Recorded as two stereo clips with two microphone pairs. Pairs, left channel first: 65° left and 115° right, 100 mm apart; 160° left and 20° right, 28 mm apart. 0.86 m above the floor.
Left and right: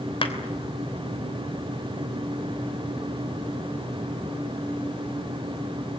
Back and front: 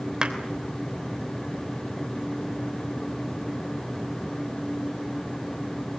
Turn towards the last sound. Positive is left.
turn(degrees=40)